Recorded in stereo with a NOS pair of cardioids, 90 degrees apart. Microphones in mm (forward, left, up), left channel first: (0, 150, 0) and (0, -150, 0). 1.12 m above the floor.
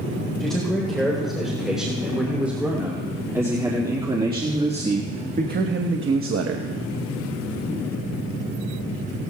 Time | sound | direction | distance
0.4 | a man speaking | straight ahead | 4 m